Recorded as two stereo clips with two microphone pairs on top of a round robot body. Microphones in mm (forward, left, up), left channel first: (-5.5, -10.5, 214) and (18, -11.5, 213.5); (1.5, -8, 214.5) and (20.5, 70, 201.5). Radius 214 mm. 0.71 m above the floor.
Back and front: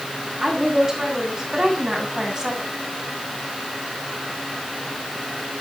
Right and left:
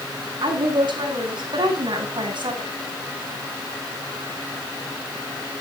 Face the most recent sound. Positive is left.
turn(degrees=60)